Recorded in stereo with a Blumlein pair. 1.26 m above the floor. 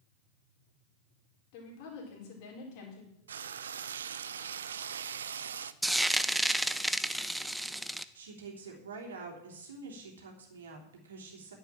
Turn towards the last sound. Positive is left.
turn(degrees=-65)